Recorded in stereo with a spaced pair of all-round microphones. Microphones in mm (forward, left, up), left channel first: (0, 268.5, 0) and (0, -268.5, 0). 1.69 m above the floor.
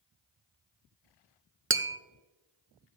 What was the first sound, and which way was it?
Tapping, 25° right (ahead or behind).